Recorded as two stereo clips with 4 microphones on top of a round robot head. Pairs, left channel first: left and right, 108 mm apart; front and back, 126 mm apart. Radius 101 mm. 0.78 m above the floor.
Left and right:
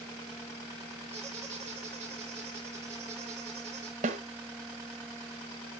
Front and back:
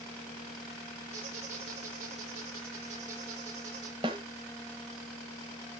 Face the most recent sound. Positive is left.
turn(degrees=-115)